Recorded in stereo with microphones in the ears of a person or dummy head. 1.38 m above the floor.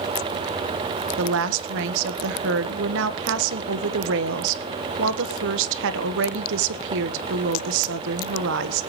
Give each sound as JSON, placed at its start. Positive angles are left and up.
{"t": 1.2, "sound": "a woman speaking", "side_deg": -60, "distance_m": 1.3}